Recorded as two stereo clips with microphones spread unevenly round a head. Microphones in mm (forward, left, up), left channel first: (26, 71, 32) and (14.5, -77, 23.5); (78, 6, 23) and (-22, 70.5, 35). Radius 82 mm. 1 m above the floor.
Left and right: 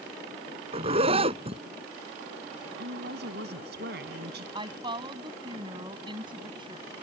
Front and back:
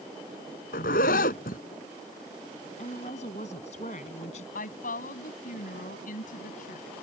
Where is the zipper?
45° right.